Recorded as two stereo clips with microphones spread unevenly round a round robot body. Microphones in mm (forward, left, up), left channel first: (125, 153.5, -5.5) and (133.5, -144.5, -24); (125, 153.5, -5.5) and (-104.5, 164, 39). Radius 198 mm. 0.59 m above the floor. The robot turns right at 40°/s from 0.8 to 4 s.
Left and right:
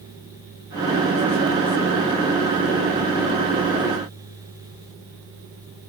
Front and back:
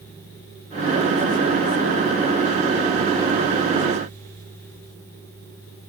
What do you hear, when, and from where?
Only background noise.